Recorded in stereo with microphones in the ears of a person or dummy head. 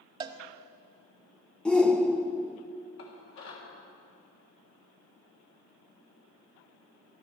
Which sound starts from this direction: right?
A cowbell, at 0.2 s.